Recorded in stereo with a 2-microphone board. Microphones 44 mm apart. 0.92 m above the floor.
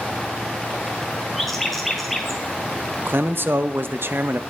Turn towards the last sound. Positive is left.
turn(degrees=-55)  # may be behind; listen again after turning